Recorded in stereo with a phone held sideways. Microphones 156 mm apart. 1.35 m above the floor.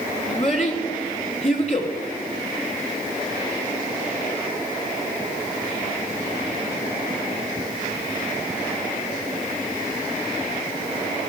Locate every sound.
0.3 s a child speaking: 40° left (ahead or behind), 3 m